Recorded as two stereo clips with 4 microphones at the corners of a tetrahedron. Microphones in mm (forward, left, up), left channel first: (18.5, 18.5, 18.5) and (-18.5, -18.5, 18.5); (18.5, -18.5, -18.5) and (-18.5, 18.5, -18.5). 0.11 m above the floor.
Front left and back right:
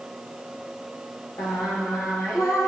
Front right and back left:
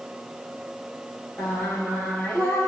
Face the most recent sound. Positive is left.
turn(degrees=20)